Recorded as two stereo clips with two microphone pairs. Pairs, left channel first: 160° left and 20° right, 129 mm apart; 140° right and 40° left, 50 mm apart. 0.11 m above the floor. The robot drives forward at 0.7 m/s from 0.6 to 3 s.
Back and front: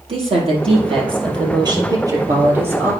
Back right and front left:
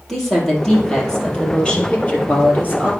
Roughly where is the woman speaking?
Ahead right.